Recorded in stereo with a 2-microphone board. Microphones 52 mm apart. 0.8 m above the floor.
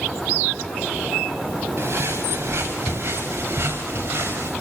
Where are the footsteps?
45° right (ahead or behind), 6.5 m; by 4.5 s 40° right (ahead or behind), 8 m.